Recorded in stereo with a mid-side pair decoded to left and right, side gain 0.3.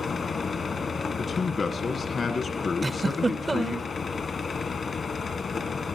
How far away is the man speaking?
About 1.4 m.